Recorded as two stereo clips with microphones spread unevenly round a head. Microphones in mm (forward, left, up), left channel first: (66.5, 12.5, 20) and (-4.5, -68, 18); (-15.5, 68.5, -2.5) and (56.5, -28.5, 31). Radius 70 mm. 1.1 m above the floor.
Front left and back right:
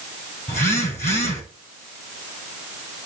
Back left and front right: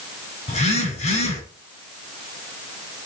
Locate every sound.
0.5 s a phone buzzing: 95° left, 7.5 m